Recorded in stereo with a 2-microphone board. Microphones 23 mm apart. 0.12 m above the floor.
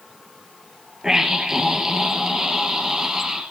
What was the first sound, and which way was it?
A scream, 25° right (ahead or behind).